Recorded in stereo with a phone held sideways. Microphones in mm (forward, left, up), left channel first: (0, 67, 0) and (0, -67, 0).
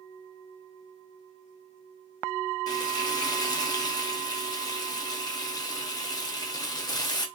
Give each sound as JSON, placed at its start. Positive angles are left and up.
{"t": 2.7, "sound": "frying", "side_deg": 30, "distance_m": 0.7}